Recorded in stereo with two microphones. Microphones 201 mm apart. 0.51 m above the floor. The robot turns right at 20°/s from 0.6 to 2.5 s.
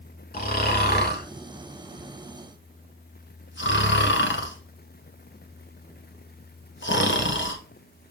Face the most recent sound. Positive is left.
turn(degrees=70)  # may be behind; listen again after turning